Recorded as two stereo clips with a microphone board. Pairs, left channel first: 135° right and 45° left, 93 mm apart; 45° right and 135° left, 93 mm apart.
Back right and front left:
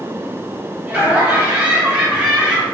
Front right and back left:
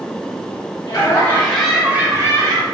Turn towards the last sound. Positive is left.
turn(degrees=125)